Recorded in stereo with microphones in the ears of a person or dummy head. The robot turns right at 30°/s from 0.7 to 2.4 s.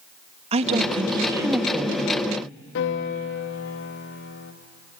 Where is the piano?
65° left (ahead or behind), 2.0 m.